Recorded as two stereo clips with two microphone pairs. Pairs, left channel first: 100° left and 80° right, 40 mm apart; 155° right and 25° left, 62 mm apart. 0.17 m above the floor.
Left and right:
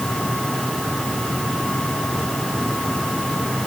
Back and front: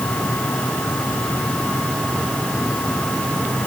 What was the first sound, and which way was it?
Only background noise.